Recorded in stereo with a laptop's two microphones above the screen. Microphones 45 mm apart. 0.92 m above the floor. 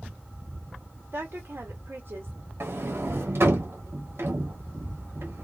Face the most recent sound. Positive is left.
turn(degrees=-65)  # may be behind; listen again after turning